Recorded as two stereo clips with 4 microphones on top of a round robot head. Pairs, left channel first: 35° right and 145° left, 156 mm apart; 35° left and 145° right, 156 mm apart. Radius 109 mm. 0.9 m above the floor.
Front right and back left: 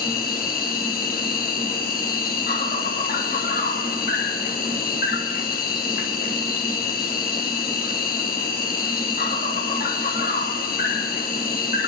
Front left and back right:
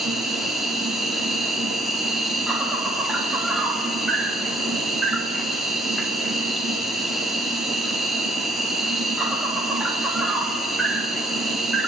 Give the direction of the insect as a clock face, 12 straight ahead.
2 o'clock.